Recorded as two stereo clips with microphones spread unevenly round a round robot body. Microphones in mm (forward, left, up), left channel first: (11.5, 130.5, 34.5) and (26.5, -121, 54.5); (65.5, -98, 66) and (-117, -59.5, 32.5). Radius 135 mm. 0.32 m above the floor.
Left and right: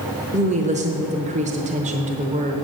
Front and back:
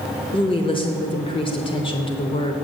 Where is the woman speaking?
60° right, 0.9 m.